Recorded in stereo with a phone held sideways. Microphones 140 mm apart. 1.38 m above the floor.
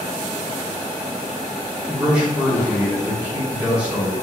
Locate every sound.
1.9 s a man speaking: 10° right (ahead or behind), 1.5 m